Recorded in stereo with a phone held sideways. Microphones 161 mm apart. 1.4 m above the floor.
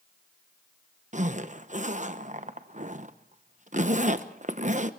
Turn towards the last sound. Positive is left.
turn(degrees=-50)  # may be behind; listen again after turning